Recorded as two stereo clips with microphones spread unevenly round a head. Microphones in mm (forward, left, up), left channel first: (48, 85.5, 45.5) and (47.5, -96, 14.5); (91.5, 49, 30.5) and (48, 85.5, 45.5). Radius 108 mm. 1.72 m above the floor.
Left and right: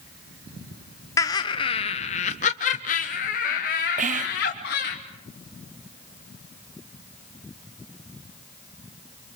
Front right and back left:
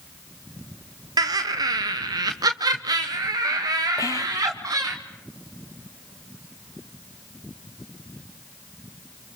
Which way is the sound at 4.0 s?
50° right.